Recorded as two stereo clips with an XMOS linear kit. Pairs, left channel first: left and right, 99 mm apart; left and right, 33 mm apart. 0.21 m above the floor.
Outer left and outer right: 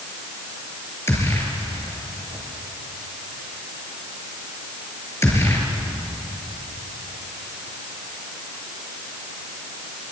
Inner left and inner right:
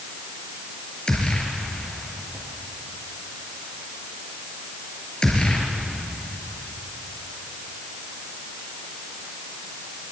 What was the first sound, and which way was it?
A gunshot, 25° left (ahead or behind).